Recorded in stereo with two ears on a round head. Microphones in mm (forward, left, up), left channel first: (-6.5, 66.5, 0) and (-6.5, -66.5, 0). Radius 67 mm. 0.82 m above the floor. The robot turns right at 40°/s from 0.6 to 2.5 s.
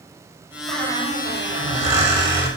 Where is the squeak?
95° right, 5.5 m; by 2.5 s 25° right, 5.5 m.